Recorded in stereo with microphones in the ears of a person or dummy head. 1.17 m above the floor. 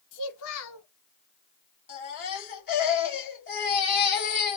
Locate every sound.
0.1 s a child speaking: 80° left, 1.9 m
1.9 s a baby crying: 50° left (ahead or behind), 2.5 m